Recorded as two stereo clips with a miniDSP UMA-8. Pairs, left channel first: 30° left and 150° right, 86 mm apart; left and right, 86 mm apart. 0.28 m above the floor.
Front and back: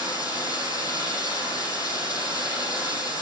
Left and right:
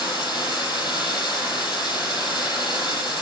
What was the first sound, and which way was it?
Running water, 70° left.